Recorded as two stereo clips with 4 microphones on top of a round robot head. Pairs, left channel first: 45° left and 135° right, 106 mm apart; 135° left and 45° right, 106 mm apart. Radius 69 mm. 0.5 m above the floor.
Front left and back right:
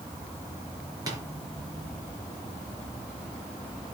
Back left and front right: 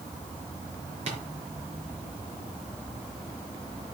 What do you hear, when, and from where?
1.1 s tapping: 80° right, 4.5 m